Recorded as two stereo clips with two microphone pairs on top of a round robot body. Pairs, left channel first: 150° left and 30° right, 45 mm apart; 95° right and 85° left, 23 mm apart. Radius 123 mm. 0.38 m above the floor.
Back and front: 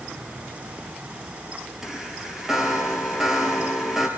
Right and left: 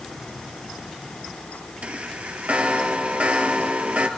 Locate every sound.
1.8 s a chime: 60° left, 2.5 m